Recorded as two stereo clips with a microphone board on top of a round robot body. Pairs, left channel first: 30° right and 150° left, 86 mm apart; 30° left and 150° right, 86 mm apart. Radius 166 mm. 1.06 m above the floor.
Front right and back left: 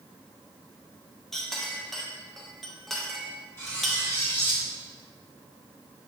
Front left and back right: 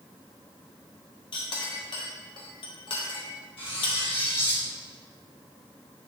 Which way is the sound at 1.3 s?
60° left.